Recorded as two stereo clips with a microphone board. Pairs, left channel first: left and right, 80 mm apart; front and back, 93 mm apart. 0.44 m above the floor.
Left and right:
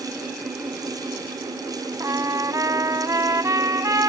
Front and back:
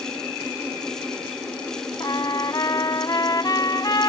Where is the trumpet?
45° right.